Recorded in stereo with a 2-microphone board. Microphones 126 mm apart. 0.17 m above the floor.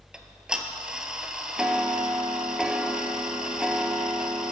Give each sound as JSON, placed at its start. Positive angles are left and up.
{"t": 0.1, "sound": "ticking", "side_deg": -5, "distance_m": 0.5}